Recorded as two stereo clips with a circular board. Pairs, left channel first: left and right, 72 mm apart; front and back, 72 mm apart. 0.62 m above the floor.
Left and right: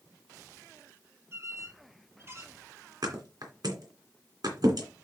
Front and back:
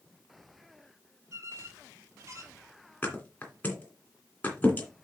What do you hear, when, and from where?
1.3 s a squeak: 140° right, 1.3 m
3.0 s a thud: 70° right, 2.5 m